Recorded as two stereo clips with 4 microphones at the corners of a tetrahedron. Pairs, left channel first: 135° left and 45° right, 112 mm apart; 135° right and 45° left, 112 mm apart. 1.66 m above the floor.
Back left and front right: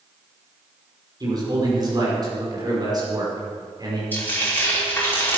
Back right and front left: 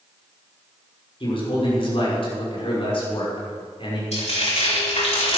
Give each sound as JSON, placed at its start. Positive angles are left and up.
{"t": 1.2, "sound": "a man speaking", "azimuth_deg": -100, "distance_m": 5.5}
{"t": 4.1, "sound": "frying", "azimuth_deg": -155, "distance_m": 4.5}